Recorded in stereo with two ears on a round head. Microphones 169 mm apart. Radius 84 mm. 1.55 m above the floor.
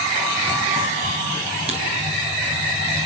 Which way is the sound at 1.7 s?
35° right (ahead or behind).